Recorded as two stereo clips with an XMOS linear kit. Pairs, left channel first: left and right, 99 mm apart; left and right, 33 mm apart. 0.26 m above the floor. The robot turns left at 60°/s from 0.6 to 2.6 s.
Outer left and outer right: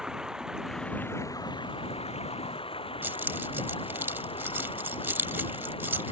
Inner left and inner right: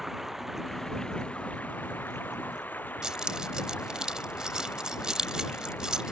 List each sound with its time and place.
0.0 s running water: 175° right; by 6.1 s 65° left
3.0 s keys jangling: 20° right (ahead or behind)